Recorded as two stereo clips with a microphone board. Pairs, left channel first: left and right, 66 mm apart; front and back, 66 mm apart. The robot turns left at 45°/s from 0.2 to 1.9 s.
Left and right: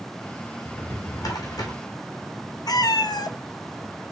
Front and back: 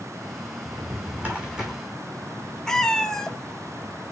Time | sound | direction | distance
0.7 | a drawer | 140° left | 2 m
2.7 | a cat meowing | 80° left | 0.7 m